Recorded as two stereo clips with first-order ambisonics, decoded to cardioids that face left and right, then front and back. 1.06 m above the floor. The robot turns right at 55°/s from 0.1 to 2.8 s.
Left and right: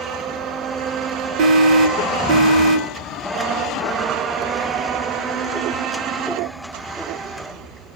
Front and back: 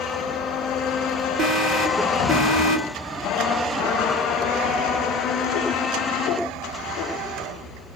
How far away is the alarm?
About 1.9 m.